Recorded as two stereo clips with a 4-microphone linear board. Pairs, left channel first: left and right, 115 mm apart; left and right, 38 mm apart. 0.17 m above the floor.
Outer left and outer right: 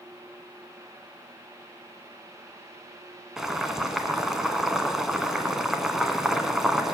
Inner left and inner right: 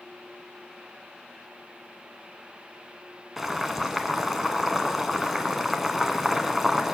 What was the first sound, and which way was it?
Boiling, 5° right (ahead or behind).